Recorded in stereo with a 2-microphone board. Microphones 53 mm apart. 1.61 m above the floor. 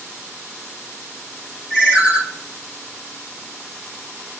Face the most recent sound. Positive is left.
turn(degrees=-35)  # may be behind; listen again after turning